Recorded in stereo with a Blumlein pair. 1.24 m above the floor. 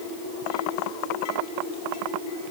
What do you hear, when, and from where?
Only background noise.